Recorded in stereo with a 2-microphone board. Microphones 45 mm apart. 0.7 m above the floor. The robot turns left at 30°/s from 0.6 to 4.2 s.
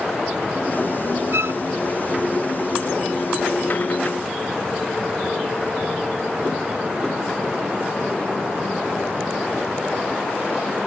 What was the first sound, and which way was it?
A violin, 75° right (ahead or behind).